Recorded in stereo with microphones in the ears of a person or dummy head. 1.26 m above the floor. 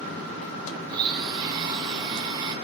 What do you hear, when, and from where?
0.9 s a blender: 20° right (ahead or behind), 2 m